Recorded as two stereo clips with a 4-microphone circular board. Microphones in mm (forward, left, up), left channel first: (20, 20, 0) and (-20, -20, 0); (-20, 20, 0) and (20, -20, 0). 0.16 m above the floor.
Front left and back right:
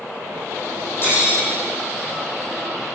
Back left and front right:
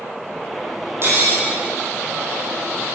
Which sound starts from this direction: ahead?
Cutlery clinking, at 1.0 s.